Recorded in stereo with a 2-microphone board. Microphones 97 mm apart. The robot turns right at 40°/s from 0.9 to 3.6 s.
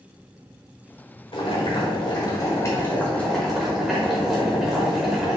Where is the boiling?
90° left, 1.4 m; by 5.4 s 175° right, 1.4 m.